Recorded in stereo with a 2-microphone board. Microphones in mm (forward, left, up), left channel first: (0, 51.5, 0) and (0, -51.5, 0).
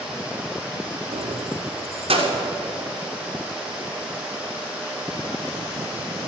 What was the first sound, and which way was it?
Keys jangling, 75° right (ahead or behind).